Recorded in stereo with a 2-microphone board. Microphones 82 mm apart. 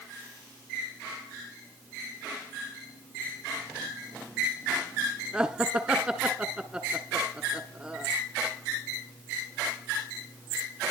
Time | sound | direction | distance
5.3 | laughter | 15° right (ahead or behind) | 1.3 m